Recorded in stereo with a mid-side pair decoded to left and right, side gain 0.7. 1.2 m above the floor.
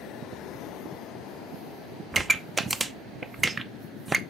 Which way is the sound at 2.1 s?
15° right.